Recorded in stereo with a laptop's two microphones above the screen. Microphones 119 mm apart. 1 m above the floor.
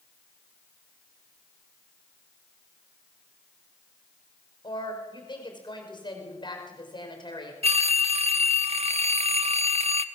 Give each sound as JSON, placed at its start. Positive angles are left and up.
{"t": 4.6, "sound": "a woman speaking", "side_deg": 40, "distance_m": 5.0}
{"t": 7.6, "sound": "a phone ringing", "side_deg": -60, "distance_m": 0.9}